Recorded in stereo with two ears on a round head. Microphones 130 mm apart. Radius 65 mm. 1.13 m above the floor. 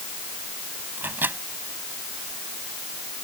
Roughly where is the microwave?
Centre.